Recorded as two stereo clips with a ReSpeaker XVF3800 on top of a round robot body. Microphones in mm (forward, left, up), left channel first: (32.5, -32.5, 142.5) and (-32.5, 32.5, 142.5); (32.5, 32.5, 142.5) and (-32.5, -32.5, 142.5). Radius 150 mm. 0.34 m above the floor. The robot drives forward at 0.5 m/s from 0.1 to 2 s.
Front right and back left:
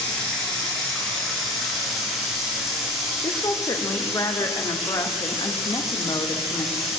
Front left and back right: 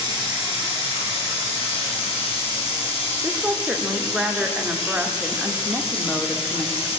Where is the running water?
35° left, 4 m; by 7.0 s 45° left, 3 m.